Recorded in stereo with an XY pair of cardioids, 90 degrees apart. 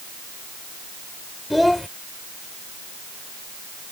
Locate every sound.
1.5 s a child speaking: 10° left